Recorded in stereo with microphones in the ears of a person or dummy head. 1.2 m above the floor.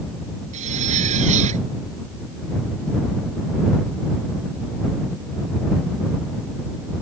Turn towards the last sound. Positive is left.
turn(degrees=-45)  # may be behind; listen again after turning